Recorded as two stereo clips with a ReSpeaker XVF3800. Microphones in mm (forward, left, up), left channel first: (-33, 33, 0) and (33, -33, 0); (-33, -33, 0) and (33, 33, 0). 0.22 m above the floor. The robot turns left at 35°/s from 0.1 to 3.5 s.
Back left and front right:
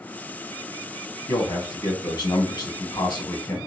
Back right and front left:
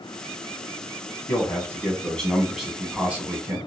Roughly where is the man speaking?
Behind.